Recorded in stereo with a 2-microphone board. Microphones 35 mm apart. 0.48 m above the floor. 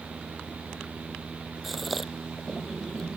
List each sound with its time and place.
1.6 s a gasp: centre (ahead or behind)